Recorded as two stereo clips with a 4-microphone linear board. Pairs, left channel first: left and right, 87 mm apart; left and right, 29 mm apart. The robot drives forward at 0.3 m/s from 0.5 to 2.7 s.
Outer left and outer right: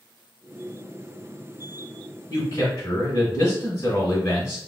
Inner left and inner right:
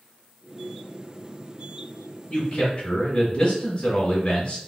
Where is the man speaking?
30° left (ahead or behind), 1.0 m.